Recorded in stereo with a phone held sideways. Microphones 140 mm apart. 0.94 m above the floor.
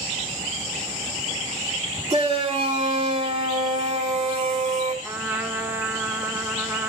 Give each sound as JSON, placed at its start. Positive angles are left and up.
{"t": 2.1, "sound": "a shout", "side_deg": -45, "distance_m": 2.5}
{"t": 5.0, "sound": "a trumpet", "side_deg": -15, "distance_m": 1.3}